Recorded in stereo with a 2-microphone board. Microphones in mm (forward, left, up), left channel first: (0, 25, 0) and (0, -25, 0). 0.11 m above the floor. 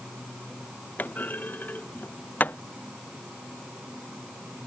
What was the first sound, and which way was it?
A clunk, 35° left (ahead or behind).